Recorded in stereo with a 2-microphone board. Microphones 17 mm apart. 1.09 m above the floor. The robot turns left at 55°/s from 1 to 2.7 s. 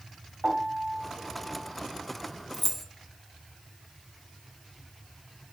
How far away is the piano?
About 2.5 m.